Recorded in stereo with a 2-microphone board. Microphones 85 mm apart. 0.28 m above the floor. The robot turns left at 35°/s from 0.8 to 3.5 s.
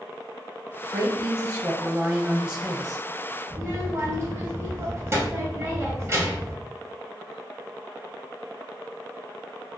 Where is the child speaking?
35° right (ahead or behind), 1.0 m.